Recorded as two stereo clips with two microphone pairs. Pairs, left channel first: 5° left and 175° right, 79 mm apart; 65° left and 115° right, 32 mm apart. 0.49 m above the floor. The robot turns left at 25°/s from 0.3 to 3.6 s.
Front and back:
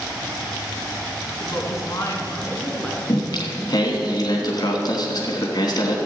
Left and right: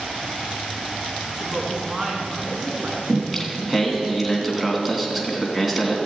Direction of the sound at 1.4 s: 35° right.